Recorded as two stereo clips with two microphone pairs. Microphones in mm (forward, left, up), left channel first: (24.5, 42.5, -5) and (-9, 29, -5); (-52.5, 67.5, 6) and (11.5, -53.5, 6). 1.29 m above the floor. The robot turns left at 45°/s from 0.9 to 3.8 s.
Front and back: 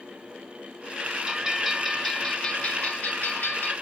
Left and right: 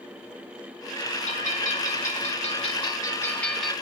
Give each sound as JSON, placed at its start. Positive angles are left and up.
{"t": 1.3, "sound": "a bell", "azimuth_deg": 135, "distance_m": 1.9}